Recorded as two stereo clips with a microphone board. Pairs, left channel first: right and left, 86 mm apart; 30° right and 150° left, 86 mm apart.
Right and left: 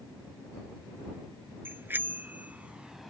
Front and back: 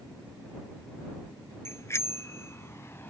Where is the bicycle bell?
25° left; by 3.1 s straight ahead.